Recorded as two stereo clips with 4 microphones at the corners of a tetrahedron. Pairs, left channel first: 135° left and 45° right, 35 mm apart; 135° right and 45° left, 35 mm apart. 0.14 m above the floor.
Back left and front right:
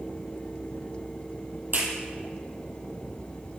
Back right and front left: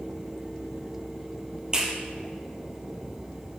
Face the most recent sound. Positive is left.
turn(degrees=-20)